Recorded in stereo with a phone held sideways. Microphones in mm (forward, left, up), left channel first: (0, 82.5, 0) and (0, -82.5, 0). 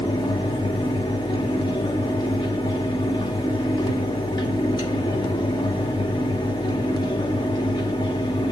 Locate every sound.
0.0 s a fan: 25° left (ahead or behind), 1.1 m